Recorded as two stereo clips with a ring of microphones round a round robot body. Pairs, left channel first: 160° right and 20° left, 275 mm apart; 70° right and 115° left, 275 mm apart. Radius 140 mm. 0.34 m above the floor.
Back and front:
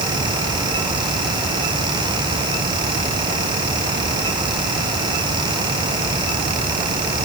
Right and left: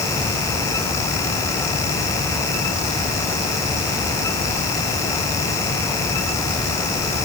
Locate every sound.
Only background noise.